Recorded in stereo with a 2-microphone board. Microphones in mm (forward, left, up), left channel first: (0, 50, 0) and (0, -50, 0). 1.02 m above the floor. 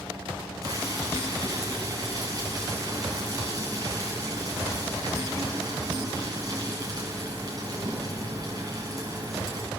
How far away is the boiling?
About 6.5 m.